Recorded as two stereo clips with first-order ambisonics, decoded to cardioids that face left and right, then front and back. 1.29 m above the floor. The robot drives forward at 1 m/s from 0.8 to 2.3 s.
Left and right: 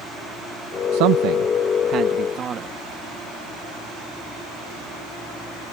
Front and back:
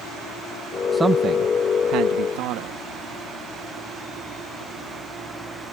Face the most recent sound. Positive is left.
turn(degrees=-150)